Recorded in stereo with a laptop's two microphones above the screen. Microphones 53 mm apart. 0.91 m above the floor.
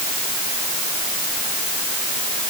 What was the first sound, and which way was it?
Only background noise.